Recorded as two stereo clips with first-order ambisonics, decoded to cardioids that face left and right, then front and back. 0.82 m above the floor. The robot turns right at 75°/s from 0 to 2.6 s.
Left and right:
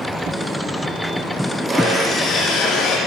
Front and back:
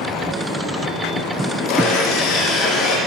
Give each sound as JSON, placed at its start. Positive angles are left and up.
{"t": 1.7, "sound": "sawing", "azimuth_deg": -25, "distance_m": 9.0}